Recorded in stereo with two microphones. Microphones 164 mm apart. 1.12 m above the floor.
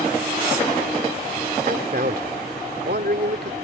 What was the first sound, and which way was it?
A man speaking, 60° right (ahead or behind).